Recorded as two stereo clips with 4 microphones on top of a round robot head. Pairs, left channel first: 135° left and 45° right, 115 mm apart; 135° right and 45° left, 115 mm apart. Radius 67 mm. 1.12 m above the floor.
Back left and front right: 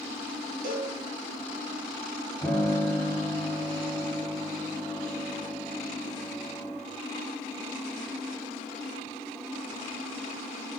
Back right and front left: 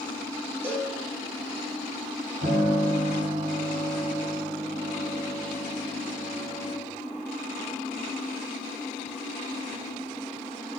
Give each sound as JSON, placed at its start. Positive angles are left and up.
{"t": 0.6, "sound": "a cowbell", "azimuth_deg": -30, "distance_m": 1.2}
{"t": 2.4, "sound": "a piano", "azimuth_deg": 60, "distance_m": 1.5}